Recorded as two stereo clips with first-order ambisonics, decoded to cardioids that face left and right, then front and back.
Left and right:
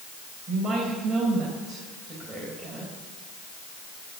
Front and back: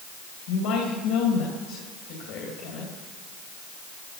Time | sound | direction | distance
0.5 | a woman speaking | 15° right | 3.5 m